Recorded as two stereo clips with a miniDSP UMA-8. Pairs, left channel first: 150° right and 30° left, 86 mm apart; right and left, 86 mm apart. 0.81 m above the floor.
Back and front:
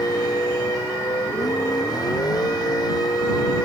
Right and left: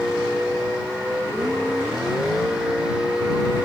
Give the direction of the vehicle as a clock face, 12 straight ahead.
6 o'clock.